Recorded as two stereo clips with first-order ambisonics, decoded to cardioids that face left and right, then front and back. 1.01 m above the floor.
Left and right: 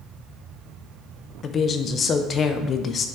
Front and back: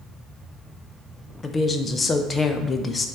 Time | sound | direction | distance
1.4 | a woman speaking | 60° left | 0.5 m